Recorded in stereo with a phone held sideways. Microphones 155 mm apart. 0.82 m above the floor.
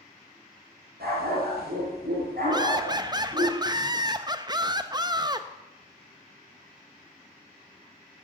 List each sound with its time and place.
1.0 s a dog barking: 85° right, 5 m; by 3.5 s 65° right (ahead or behind), 5.5 m
2.5 s laughter: 25° right (ahead or behind), 0.6 m